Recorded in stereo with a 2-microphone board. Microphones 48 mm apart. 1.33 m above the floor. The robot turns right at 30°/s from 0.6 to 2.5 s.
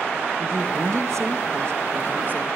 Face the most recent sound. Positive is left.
turn(degrees=-40)